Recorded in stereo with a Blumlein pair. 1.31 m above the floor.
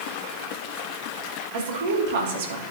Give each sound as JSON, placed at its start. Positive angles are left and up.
{"t": 1.5, "sound": "a woman speaking", "azimuth_deg": -55, "distance_m": 2.5}